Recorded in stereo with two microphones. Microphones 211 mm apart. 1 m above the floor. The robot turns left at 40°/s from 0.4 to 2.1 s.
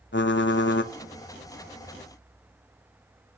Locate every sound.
0.1 s typing on a keyboard: 60° left (ahead or behind), 0.6 m; by 0.9 s 55° left (ahead or behind), 0.6 m